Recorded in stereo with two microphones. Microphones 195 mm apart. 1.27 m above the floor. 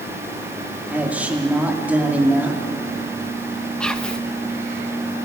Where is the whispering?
5° left (ahead or behind), 1.3 m.